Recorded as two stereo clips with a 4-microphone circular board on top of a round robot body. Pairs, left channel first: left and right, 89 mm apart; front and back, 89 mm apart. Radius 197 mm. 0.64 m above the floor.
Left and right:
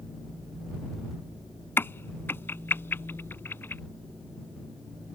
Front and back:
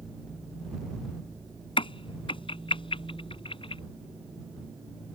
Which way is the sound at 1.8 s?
25° left.